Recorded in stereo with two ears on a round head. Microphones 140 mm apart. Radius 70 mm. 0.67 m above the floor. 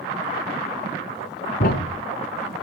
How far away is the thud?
About 2.5 m.